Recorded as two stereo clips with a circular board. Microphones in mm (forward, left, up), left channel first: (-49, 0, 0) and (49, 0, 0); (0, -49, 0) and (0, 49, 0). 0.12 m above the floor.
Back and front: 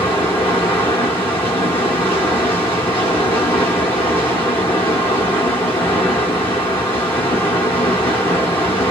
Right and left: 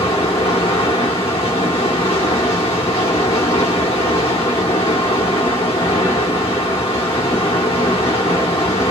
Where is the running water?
115° right, 1.0 m.